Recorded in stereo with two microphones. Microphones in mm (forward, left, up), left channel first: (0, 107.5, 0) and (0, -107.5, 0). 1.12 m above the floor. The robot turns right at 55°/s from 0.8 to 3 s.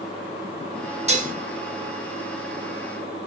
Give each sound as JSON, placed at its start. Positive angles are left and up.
{"t": 1.1, "sound": "dishes clattering", "side_deg": -30, "distance_m": 0.6}